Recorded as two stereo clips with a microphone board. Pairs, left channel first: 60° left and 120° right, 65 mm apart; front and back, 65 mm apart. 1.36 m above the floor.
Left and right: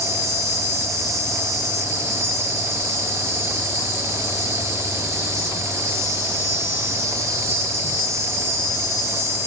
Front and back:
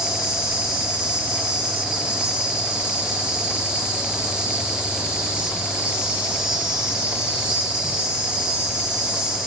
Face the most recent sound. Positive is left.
turn(degrees=-110)